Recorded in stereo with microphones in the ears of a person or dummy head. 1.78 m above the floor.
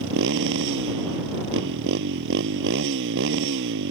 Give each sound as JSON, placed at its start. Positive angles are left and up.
{"t": 0.0, "sound": "a motorcycle", "side_deg": -70}